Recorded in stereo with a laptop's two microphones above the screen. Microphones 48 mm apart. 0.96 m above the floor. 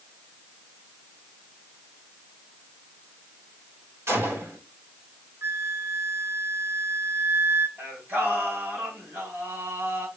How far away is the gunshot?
About 4 m.